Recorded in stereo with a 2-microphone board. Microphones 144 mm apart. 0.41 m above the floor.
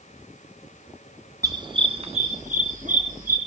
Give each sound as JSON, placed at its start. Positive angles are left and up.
{"t": 1.4, "sound": "a dog barking", "side_deg": -25, "distance_m": 1.4}